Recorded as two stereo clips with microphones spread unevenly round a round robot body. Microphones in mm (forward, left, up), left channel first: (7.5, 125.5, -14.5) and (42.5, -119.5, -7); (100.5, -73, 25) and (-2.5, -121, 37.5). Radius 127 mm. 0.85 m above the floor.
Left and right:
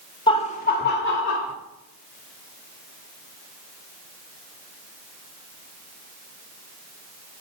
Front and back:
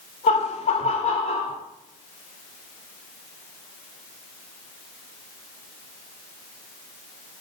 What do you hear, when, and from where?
0.3 s laughter: 30° left, 1.1 m; by 1.5 s 60° left, 2.5 m